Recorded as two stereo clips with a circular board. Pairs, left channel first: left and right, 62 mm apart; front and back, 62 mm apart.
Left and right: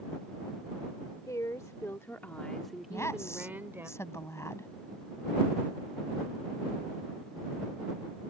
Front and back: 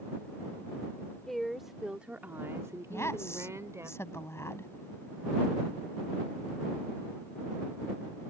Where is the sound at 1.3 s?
85° left; by 3.9 s 140° right.